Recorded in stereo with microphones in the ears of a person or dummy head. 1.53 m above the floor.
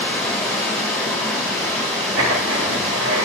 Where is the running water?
Centre (ahead or behind), 1.6 m.